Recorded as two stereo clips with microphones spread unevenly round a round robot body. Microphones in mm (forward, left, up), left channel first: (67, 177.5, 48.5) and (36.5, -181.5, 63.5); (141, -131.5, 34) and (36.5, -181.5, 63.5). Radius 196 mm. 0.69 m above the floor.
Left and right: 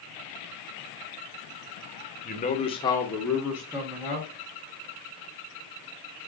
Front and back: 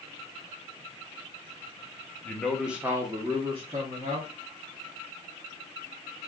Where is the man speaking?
50° left, 0.8 m; by 4.3 s 170° right, 1.2 m.